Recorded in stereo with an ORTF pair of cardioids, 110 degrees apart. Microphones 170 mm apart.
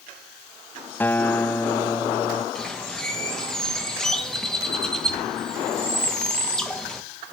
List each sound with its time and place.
1.0 s a guitar: 10° left, 0.7 m
2.5 s a bird: 5° left, 1.8 m